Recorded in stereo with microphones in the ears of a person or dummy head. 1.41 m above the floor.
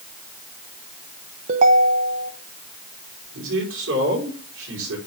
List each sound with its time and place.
1.5 s a ringtone: 50° right (ahead or behind), 0.8 m
3.3 s a man speaking: 85° right, 4.5 m